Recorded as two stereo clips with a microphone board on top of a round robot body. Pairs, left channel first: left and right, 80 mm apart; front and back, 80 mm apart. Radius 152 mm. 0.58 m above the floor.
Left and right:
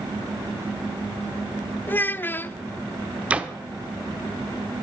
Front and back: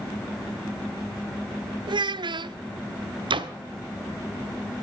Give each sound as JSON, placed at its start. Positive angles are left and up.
{"t": 1.9, "sound": "a child speaking", "azimuth_deg": 155, "distance_m": 0.6}
{"t": 3.3, "sound": "a door slam", "azimuth_deg": -165, "distance_m": 1.1}